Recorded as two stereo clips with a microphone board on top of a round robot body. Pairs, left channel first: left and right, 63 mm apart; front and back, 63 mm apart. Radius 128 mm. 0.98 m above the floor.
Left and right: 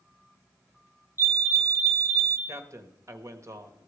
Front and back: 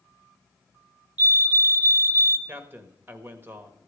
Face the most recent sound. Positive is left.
turn(degrees=-125)